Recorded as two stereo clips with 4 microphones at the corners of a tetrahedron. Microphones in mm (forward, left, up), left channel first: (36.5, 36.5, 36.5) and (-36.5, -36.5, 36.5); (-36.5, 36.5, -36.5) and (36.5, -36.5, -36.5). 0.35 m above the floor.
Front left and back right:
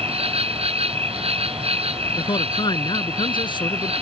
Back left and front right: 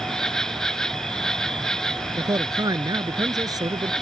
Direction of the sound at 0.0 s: 140° right.